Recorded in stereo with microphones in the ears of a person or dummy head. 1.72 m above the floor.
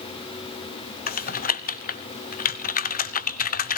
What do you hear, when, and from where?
1.1 s typing on a keyboard: 45° left (ahead or behind), 1.0 m